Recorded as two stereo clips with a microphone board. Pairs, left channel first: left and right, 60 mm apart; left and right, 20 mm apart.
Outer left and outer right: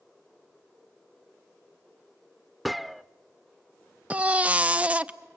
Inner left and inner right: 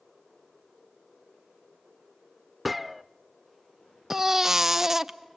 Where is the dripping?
No dripping in this recording.